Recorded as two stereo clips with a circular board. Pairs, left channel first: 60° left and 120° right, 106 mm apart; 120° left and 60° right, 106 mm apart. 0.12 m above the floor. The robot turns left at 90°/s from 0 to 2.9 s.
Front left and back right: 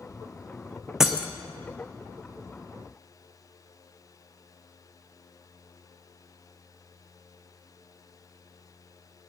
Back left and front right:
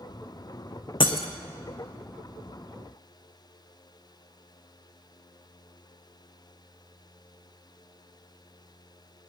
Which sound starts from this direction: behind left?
Breaking glass, at 1.0 s.